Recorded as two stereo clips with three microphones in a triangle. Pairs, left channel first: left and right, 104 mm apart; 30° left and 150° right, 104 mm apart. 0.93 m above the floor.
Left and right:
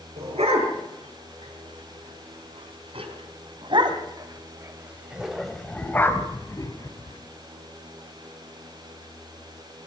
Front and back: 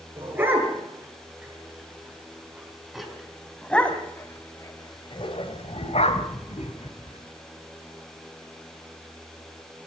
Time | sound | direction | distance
0.2 | a dog barking | 80° right | 6.5 m